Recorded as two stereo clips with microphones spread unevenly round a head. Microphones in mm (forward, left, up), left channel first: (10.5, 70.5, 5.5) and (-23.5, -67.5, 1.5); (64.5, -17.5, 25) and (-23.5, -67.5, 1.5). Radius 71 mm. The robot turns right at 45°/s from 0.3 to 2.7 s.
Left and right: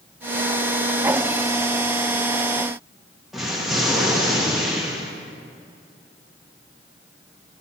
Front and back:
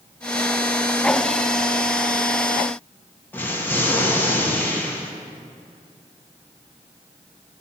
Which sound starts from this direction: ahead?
An explosion, at 3.3 s.